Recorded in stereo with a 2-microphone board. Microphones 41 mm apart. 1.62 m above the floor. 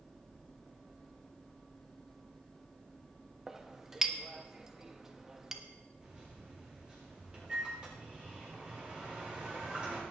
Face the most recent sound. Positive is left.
turn(degrees=-25)  # may be behind; listen again after turning